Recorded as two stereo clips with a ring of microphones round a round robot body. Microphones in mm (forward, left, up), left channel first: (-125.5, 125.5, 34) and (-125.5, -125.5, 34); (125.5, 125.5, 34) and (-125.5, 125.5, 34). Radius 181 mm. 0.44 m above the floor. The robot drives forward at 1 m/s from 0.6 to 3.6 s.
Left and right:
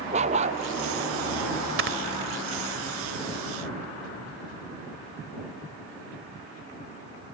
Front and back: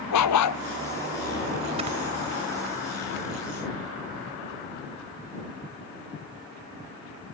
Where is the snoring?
110° right; by 2.0 s 115° right.